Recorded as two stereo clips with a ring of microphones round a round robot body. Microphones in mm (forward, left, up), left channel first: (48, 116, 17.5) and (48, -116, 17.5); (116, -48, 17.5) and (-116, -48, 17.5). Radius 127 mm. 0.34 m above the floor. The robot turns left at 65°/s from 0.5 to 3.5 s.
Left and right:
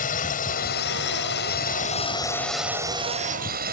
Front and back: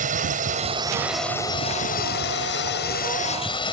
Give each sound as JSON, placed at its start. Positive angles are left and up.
{"t": 0.0, "sound": "a drone", "azimuth_deg": 135}